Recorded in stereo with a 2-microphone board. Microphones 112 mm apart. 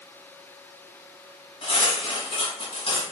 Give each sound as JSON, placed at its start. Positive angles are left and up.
{"t": 1.6, "sound": "cutlery clinking", "side_deg": 50, "distance_m": 1.8}